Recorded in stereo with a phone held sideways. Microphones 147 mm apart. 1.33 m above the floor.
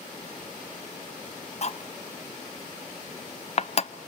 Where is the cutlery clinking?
45° left (ahead or behind), 0.7 m.